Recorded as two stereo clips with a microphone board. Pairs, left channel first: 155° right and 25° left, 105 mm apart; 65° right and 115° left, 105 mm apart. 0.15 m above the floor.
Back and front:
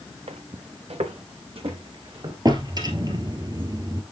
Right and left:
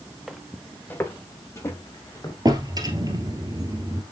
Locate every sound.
0.3 s footsteps: 25° left, 0.9 m; by 2.4 s 10° right, 3 m
2.5 s a drawer: 65° left, 1.6 m